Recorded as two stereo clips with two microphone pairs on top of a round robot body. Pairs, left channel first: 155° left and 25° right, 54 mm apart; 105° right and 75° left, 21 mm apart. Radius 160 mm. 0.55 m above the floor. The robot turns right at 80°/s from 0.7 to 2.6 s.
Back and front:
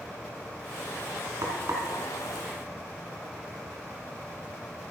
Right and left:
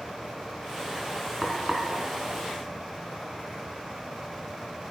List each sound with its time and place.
1.4 s frying: 5° right, 2.5 m; by 1.9 s 30° left, 2.5 m